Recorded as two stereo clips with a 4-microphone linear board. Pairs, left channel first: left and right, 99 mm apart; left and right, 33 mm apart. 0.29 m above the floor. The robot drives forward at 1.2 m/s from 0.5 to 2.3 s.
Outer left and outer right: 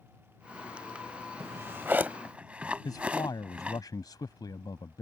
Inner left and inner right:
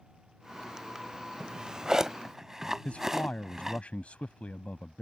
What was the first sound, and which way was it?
A drawer, 25° right (ahead or behind).